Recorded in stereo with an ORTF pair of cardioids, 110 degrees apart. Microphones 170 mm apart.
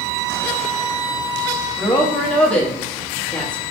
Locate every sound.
1.8 s a woman speaking: 5° left, 0.9 m